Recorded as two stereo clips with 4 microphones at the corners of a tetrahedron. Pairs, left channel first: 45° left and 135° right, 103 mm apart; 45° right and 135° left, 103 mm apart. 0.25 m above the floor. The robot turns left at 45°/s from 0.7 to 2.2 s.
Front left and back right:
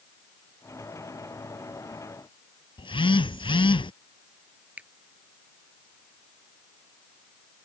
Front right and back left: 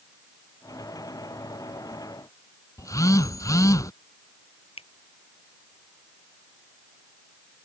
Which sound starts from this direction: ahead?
A phone buzzing, at 2.8 s.